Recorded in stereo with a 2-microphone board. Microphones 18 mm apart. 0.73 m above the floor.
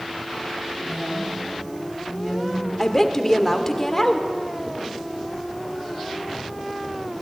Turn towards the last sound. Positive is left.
turn(degrees=20)  # may be behind; listen again after turning